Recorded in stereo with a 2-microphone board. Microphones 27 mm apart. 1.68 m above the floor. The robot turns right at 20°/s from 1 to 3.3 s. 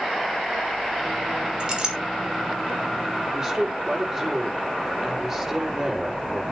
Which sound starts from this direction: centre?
A woman speaking, at 3.3 s.